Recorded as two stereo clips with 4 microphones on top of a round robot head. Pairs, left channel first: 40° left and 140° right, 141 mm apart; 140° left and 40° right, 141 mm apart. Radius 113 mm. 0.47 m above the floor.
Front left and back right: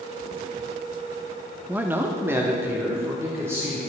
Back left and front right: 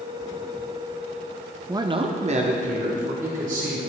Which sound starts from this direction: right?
A man speaking, at 1.7 s.